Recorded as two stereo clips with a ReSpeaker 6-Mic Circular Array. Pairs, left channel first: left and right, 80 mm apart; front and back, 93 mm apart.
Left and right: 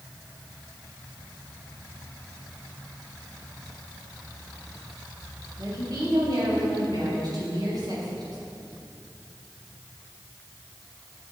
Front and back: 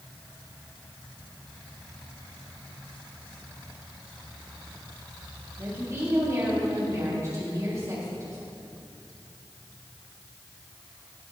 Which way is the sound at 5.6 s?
125° right.